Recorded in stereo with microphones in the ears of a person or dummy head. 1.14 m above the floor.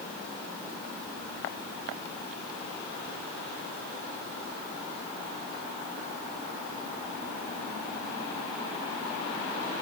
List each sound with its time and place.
Only background noise.